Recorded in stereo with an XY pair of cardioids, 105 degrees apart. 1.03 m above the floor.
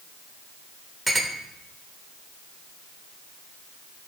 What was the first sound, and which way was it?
A clink, 15° right.